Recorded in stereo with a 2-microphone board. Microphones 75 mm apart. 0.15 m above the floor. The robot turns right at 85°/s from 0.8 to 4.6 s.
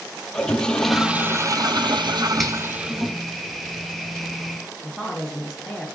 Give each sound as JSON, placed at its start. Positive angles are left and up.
{"t": 0.3, "sound": "a toilet flushing", "azimuth_deg": 170, "distance_m": 0.7}
{"t": 2.4, "sound": "a finger snap", "side_deg": 5, "distance_m": 2.5}
{"t": 4.8, "sound": "a woman speaking", "side_deg": 0, "distance_m": 1.7}